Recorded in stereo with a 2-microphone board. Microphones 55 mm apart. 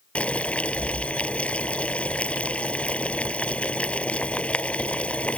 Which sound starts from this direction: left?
Boiling, at 0.1 s.